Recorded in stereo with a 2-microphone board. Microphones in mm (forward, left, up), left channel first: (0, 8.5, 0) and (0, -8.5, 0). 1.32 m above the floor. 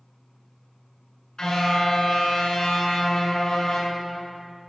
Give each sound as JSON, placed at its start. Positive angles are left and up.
{"t": 1.4, "sound": "a car horn", "side_deg": 50, "distance_m": 8.5}